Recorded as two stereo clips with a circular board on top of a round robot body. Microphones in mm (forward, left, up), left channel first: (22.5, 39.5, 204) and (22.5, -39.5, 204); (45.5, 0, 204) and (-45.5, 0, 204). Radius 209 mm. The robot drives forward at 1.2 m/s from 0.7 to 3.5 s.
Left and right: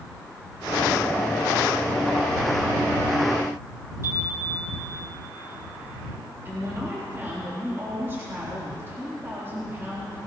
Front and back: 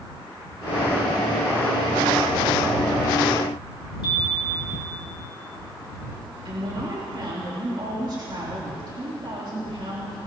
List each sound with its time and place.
4.0 s a chime: 35° right, 2.5 m
6.5 s a woman speaking: 145° right, 3.5 m